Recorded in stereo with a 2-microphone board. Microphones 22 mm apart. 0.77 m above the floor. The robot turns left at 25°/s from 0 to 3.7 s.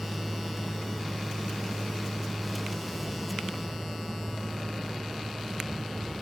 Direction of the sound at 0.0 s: 75° right.